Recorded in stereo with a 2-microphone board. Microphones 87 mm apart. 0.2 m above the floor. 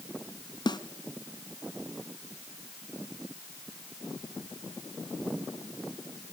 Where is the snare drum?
55° left (ahead or behind), 1.1 m.